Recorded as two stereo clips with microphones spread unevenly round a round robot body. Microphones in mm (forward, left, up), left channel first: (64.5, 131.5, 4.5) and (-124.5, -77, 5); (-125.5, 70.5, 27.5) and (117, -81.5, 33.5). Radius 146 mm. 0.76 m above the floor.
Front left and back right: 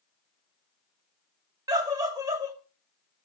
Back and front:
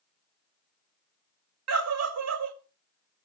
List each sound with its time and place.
1.7 s a scream: 55° right, 1.9 m